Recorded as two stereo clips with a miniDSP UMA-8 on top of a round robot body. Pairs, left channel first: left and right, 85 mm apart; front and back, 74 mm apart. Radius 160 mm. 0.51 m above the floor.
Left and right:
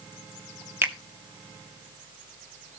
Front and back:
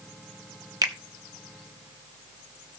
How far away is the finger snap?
About 1.5 m.